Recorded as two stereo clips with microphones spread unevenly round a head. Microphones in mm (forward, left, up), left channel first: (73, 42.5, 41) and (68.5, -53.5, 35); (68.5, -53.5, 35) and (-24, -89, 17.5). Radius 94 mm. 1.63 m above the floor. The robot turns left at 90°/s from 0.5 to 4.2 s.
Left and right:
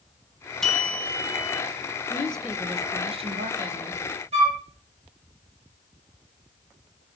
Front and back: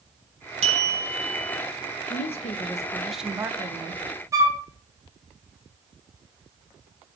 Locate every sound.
0.6 s a bell: 170° left, 1.3 m; by 1.6 s 85° left, 1.3 m
2.1 s a woman speaking: 25° left, 1.2 m; by 4.0 s 145° right, 1.2 m
4.3 s a flute: 100° right, 1.9 m